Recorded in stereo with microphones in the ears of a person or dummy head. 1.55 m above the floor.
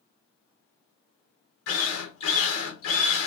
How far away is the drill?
About 0.9 m.